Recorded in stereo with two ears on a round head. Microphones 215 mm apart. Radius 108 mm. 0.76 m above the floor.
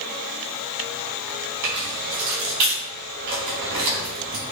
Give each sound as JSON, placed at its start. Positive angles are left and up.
{"t": 1.6, "sound": "keys jangling", "side_deg": -80, "distance_m": 4.5}